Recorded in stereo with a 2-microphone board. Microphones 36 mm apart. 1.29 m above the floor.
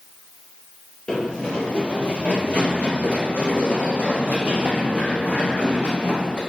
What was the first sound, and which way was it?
Running footsteps, 20° left (ahead or behind).